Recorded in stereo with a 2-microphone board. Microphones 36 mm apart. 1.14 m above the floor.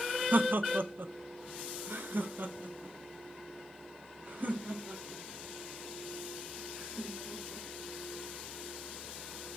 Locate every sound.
0.3 s laughter: 60° right (ahead or behind), 0.7 m; by 7.7 s 40° right (ahead or behind), 4 m